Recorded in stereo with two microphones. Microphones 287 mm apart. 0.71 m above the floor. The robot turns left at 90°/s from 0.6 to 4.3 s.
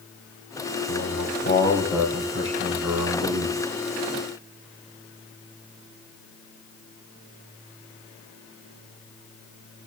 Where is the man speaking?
90° left, 4.5 m; by 3.6 s 150° right, 4.5 m.